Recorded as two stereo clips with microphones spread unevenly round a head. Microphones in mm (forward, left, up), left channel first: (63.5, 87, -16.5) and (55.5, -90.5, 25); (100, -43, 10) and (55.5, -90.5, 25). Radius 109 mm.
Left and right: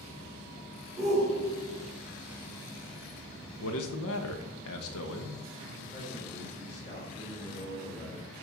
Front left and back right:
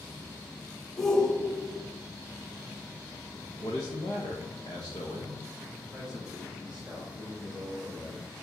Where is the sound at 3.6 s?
110° left, 1.0 m.